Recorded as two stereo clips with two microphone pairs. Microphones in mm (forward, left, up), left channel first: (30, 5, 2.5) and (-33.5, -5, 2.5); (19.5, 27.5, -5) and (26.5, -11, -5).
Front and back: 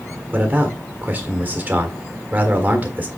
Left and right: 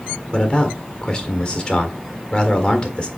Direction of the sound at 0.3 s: 145° left.